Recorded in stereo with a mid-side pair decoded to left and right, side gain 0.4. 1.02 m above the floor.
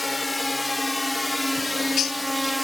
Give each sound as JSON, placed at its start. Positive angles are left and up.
{"t": 0.0, "sound": "a drone", "azimuth_deg": 15}
{"t": 1.6, "sound": "a bird", "azimuth_deg": 60}